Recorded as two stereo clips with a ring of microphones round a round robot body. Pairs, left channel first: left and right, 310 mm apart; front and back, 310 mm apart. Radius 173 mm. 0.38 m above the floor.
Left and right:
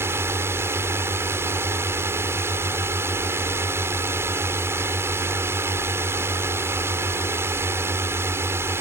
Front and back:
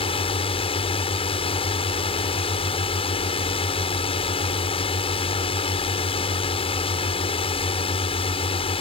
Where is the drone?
25° right.